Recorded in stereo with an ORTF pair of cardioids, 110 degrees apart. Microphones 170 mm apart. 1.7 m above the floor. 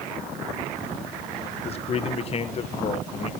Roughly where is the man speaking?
Ahead left.